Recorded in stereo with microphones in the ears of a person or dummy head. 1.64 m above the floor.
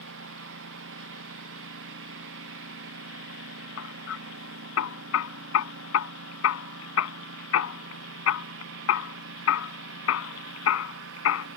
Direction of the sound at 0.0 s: 75° right (ahead or behind).